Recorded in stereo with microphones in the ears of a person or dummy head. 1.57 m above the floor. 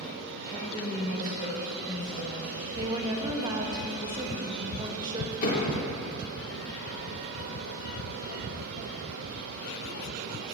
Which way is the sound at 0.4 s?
30° left (ahead or behind).